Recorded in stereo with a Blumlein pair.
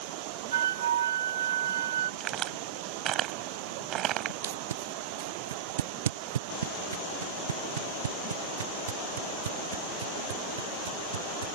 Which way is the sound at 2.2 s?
30° right.